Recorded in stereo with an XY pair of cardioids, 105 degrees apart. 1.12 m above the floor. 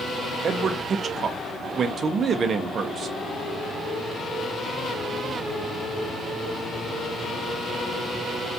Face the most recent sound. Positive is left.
turn(degrees=-50)